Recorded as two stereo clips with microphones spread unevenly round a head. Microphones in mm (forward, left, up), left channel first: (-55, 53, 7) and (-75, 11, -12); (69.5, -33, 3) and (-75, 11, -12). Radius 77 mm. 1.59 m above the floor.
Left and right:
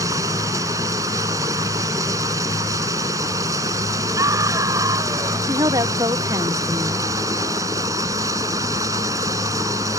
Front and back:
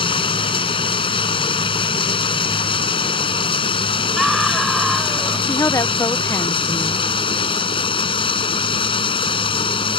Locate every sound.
0.0 s running water: 75° right
4.2 s a scream: 105° right
5.5 s a woman speaking: 90° right